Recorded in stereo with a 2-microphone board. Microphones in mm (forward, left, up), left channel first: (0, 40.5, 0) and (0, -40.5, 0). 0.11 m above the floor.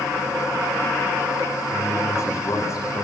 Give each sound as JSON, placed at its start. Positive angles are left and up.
{"t": 1.7, "sound": "a man speaking", "side_deg": 35, "distance_m": 8.0}